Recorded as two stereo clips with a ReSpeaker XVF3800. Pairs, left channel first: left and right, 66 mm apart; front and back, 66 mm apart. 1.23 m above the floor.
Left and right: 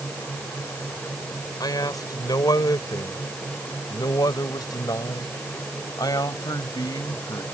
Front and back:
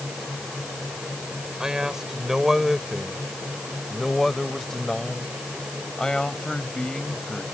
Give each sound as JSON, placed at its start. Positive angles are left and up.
{"t": 1.6, "sound": "a man speaking", "azimuth_deg": 100}